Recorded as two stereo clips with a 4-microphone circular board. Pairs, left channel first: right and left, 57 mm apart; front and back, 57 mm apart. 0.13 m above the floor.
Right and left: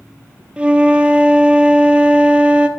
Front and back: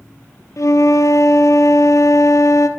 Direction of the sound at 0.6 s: 20° left.